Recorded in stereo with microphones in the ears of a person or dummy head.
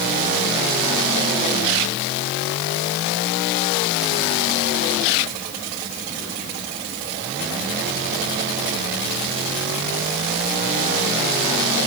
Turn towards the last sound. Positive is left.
No sound to turn to.